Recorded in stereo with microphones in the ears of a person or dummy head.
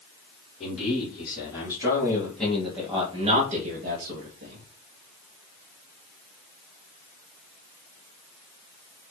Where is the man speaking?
35° left (ahead or behind), 2.5 m; by 4.7 s 75° right (ahead or behind), 1.5 m.